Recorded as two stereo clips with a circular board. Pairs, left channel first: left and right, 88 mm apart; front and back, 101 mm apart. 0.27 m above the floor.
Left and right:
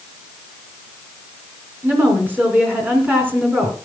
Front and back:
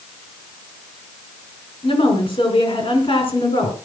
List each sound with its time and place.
1.8 s a woman speaking: 20° right, 3.5 m